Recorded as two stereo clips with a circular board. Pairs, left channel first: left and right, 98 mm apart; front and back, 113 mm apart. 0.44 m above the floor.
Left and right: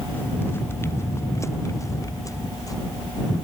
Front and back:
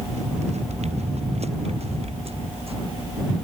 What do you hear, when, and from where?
0.1 s footsteps: 160° left; by 2.7 s 145° left